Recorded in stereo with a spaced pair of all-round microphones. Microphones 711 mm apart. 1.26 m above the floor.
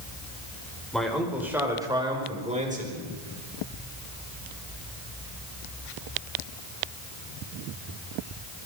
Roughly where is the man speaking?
Centre.